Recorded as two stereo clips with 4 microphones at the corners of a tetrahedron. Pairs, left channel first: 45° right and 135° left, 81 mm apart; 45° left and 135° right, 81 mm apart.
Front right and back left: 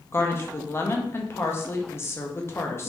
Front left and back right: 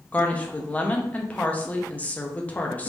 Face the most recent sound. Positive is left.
turn(degrees=-15)